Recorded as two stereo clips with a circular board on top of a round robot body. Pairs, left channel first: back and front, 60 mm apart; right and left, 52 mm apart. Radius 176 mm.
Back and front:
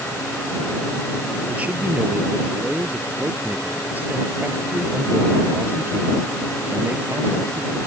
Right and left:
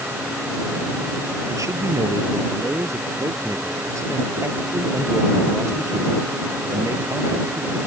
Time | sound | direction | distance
1.5 | a man speaking | 70° left | ?